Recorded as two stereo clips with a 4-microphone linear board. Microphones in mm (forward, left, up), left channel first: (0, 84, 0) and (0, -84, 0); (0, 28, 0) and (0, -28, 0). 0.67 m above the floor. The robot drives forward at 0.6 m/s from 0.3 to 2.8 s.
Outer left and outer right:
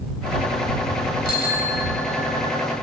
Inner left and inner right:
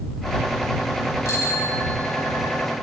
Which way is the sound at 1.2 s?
75° left (ahead or behind).